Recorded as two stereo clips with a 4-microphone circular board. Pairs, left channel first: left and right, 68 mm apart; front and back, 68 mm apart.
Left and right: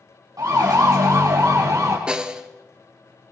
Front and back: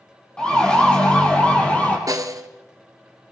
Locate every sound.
0.4 s a siren: 75° right, 5 m; by 2.0 s 65° right, 4 m
2.1 s a snare drum: 165° right, 1.2 m